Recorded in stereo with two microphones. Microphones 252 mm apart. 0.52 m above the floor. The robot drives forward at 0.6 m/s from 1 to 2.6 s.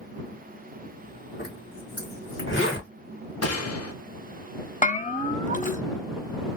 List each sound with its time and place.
1.4 s a zipper: 45° left (ahead or behind), 1.8 m; by 2.9 s 50° left (ahead or behind), 1.7 m
3.4 s a gunshot: 75° left (ahead or behind), 0.6 m
4.8 s a bell: 30° left (ahead or behind), 0.6 m